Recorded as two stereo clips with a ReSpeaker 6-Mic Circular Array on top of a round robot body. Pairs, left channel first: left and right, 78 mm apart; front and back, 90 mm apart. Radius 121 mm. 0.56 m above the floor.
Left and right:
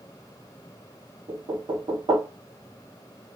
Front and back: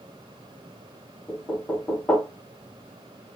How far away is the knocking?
About 1.0 m.